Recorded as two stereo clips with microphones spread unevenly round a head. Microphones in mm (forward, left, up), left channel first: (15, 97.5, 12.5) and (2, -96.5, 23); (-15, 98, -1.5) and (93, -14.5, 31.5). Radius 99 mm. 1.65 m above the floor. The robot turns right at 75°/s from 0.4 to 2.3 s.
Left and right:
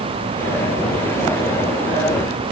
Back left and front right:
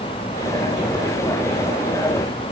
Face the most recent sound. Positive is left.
No sound to turn to.